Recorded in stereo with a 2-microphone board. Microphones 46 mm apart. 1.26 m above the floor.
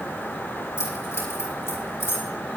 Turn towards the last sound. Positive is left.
turn(degrees=70)  # may be behind; listen again after turning